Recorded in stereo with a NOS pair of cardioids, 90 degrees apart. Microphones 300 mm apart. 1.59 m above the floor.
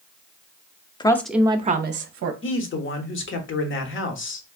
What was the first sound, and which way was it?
A woman speaking, 15° left.